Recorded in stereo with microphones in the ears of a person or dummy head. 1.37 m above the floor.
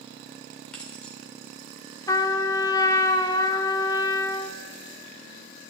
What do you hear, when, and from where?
0.7 s keys jangling: 10° left (ahead or behind), 3.5 m
2.1 s a trumpet: 20° left (ahead or behind), 0.9 m